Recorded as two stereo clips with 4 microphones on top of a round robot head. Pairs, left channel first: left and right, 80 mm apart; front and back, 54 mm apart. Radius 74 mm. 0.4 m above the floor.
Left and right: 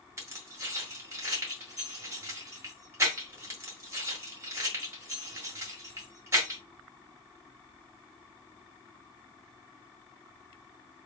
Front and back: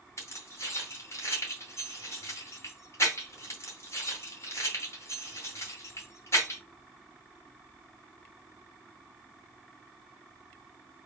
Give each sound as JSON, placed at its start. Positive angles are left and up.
{"t": 0.2, "sound": "keys jangling", "azimuth_deg": -35, "distance_m": 1.8}